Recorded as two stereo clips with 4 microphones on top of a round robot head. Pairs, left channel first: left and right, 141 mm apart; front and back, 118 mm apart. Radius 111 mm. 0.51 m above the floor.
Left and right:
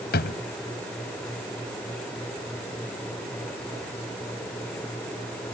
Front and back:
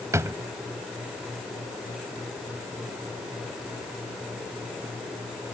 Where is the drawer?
115° left.